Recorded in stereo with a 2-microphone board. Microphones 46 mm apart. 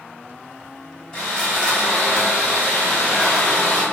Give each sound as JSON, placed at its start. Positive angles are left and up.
{"t": 1.1, "sound": "sawing", "side_deg": 20, "distance_m": 1.3}